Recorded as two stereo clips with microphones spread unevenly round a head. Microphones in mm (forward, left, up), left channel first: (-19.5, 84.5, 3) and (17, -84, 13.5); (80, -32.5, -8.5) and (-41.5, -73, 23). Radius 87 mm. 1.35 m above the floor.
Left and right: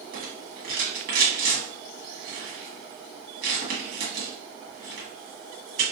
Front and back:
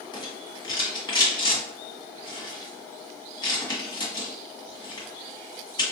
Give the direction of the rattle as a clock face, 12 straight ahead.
1 o'clock.